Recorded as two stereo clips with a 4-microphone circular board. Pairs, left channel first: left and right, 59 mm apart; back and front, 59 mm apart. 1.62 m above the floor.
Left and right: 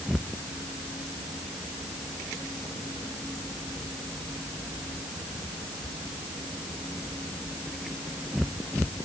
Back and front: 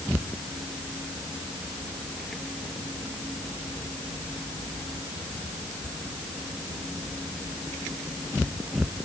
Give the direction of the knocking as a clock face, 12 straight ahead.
No knocking in this recording.